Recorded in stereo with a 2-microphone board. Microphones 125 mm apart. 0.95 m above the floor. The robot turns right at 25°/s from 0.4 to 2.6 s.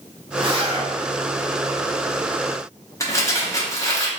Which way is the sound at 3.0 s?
25° left (ahead or behind).